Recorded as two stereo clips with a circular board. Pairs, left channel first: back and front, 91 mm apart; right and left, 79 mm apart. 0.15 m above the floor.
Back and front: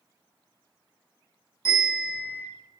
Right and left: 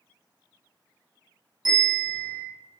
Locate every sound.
1.6 s a bell: 125° left, 1.5 m